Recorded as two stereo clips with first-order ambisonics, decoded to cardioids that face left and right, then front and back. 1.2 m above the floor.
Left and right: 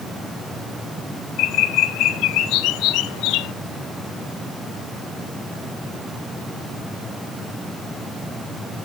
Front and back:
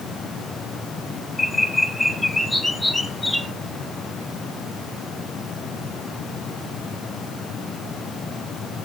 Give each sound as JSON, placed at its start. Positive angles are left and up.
{"t": 1.4, "sound": "a bird", "azimuth_deg": 85, "distance_m": 0.5}